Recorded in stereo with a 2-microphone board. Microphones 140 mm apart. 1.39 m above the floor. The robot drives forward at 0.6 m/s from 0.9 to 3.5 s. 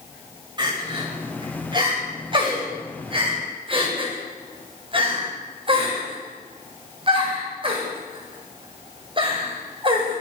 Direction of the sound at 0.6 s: 30° right (ahead or behind).